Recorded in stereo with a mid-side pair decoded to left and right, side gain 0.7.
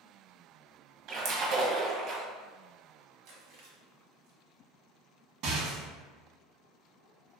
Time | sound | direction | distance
1.1 | a splash | 60° right | 1.0 m
3.2 | chewing | 70° right | 1.2 m
5.4 | a rattle | 65° right | 1.2 m